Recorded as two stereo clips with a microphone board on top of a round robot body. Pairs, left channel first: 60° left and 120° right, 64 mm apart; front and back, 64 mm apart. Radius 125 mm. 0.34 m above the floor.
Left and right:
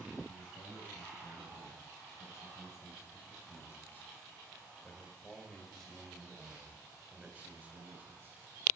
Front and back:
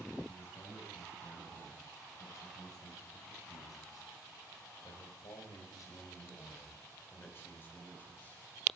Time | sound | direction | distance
0.3 | a man speaking | 35° left | 6 m